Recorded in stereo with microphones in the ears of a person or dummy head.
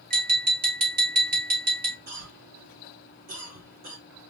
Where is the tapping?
45° right (ahead or behind), 1.4 m.